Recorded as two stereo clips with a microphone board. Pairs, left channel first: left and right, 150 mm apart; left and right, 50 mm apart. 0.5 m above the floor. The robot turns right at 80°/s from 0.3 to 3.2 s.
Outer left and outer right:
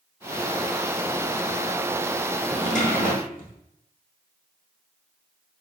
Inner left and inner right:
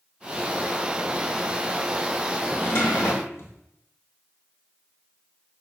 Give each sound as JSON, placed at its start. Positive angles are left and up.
{"t": 2.5, "sound": "a drawer", "azimuth_deg": 45, "distance_m": 0.9}